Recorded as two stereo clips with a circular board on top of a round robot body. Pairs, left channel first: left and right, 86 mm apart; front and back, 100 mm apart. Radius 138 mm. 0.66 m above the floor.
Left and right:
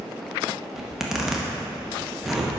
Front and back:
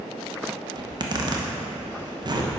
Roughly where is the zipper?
Behind.